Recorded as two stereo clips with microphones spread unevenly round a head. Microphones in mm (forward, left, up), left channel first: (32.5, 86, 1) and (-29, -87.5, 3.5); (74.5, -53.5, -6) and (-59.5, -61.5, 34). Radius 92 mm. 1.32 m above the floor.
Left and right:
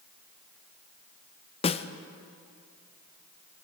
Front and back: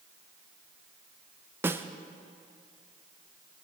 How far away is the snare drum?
About 0.5 m.